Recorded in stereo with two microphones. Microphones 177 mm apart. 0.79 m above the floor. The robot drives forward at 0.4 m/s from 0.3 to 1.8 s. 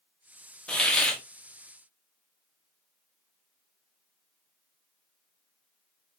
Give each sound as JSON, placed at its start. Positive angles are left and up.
{"t": 0.7, "sound": "a hiss", "side_deg": 5, "distance_m": 1.0}